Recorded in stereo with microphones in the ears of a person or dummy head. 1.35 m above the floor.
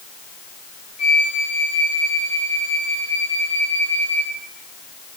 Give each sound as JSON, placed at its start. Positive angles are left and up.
{"t": 1.0, "sound": "a flute", "side_deg": 45, "distance_m": 3.0}